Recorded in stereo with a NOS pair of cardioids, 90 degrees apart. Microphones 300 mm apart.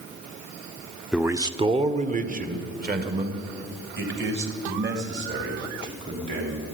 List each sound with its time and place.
1.1 s a man speaking: straight ahead, 0.7 m; by 6.7 s 40° right, 5 m